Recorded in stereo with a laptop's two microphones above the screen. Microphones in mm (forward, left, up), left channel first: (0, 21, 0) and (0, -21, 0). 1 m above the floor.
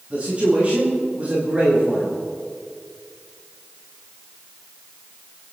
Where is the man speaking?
30° right (ahead or behind), 5 m.